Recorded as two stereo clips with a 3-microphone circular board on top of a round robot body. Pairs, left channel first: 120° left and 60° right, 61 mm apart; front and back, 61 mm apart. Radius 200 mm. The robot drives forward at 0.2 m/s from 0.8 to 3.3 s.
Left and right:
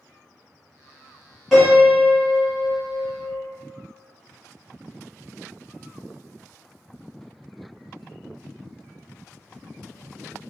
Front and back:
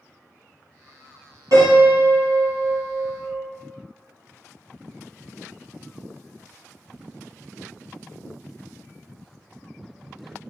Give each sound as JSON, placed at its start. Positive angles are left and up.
{"t": 1.5, "sound": "a piano", "azimuth_deg": -150, "distance_m": 1.6}